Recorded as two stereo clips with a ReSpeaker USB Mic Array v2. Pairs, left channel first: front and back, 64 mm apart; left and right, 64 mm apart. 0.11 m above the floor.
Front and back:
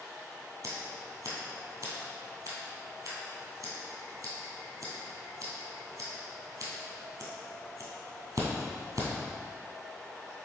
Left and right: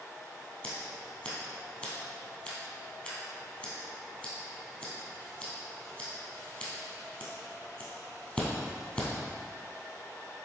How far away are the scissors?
About 2 m.